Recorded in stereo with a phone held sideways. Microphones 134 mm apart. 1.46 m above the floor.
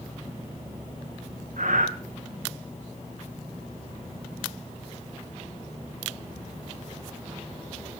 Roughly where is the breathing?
Right.